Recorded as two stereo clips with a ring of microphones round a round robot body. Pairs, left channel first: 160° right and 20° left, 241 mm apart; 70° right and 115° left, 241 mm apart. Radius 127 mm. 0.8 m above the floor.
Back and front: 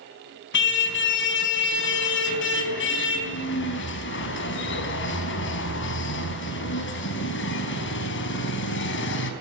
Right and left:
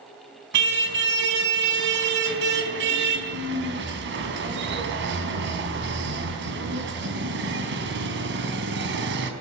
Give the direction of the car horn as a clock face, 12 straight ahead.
7 o'clock.